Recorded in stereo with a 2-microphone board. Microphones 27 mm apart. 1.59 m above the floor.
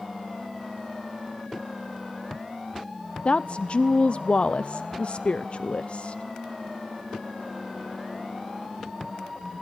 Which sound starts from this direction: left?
A woman speaking, at 3.2 s.